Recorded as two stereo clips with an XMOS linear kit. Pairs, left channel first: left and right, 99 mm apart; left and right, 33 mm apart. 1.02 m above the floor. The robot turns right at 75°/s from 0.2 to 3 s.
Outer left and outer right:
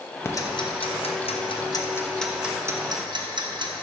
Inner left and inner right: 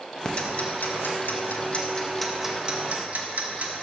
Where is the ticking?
25° left (ahead or behind), 0.9 m; by 3.8 s 50° right (ahead or behind), 0.9 m.